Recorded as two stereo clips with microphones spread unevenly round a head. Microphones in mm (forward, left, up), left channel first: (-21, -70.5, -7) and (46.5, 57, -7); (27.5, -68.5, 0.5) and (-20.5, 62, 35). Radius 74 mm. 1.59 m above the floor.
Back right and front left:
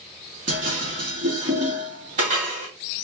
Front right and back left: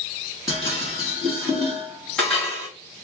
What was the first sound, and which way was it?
Dishes clattering, 20° left.